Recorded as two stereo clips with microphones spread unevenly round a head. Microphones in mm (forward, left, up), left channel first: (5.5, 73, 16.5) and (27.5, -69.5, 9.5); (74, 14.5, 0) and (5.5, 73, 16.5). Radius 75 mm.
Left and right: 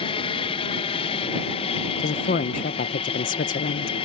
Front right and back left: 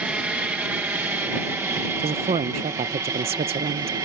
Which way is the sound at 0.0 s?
65° left.